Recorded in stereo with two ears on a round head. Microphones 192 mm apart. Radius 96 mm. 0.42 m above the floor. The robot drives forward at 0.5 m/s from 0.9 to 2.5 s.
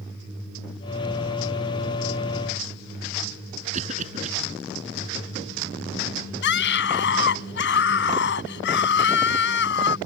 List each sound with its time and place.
3.7 s a cough: 35° right (ahead or behind)
6.4 s a scream: 60° left (ahead or behind)